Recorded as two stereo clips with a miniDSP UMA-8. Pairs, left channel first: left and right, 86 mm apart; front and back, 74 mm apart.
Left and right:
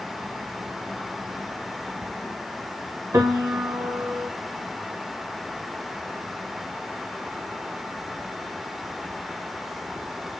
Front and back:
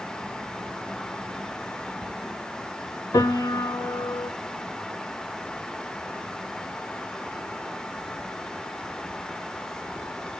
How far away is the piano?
About 0.9 m.